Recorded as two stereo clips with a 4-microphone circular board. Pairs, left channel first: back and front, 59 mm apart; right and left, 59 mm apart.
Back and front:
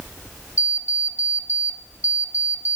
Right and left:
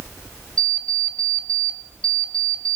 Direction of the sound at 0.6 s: 160° right.